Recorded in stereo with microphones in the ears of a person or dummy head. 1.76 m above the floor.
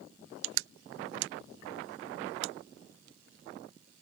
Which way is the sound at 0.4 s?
75° right (ahead or behind).